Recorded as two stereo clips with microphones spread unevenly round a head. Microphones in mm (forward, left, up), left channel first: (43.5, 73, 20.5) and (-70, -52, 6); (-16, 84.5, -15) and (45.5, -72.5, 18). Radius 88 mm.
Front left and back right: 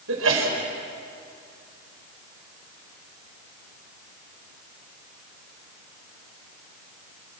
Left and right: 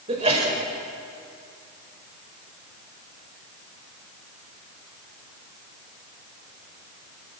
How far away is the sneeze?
About 5.5 m.